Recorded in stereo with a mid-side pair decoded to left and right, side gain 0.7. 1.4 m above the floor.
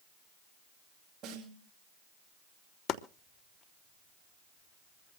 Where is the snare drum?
45° right, 8 m.